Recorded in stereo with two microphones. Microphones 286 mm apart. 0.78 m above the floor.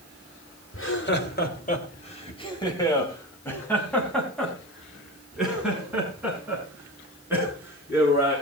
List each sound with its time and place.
0.7 s laughter: 45° left (ahead or behind), 2.5 m; by 8.3 s 10° right (ahead or behind), 10.5 m